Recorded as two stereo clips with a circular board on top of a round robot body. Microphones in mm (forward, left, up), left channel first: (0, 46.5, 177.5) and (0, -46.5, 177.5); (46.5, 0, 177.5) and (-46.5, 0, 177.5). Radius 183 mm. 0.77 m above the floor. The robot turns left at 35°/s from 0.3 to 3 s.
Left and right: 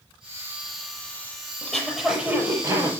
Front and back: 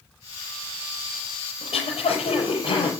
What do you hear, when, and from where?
1.6 s throat clearing: 10° left, 5.5 m; by 2.9 s 35° right, 5.5 m